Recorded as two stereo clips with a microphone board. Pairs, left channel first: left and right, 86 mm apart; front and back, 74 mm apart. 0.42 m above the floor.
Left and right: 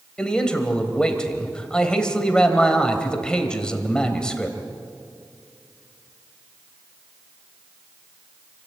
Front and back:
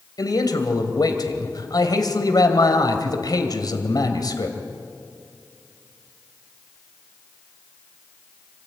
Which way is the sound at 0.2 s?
10° left.